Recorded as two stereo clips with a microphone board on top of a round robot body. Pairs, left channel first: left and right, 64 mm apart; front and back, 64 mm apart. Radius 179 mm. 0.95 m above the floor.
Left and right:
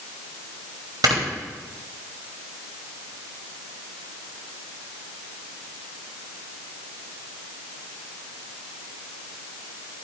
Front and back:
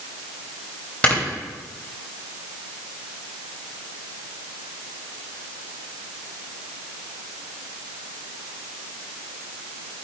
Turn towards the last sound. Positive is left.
turn(degrees=-75)